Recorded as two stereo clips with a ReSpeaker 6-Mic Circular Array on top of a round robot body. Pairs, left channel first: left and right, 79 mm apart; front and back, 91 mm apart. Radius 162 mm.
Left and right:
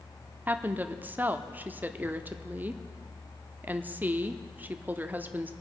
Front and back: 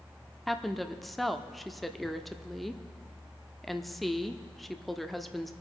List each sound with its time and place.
0.5 s a woman speaking: 85° right, 1.0 m